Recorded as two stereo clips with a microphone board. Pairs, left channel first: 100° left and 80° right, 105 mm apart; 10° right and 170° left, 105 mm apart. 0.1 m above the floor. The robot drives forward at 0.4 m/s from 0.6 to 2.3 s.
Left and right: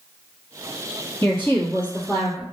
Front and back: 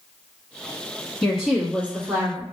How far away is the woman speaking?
About 1.1 m.